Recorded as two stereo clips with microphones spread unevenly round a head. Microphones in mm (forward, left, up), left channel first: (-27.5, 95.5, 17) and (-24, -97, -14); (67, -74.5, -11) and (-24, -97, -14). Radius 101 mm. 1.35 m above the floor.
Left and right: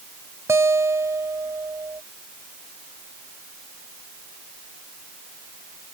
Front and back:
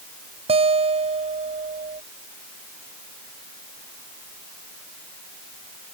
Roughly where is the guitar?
Behind.